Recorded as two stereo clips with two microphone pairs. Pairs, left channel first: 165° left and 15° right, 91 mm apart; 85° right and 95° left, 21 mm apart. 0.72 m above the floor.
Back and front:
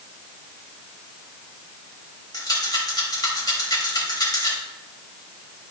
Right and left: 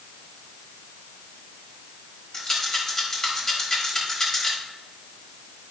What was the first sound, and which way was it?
A rattle, 150° right.